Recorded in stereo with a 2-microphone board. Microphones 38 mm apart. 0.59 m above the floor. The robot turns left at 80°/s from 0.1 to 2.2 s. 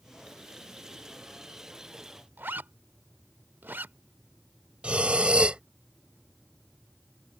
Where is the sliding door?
I don't hear a sliding door.